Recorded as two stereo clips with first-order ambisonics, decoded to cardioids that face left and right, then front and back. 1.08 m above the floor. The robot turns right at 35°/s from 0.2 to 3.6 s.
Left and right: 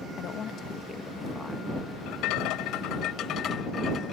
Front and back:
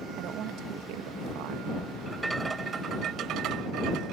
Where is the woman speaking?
140° left; by 1.7 s 170° right.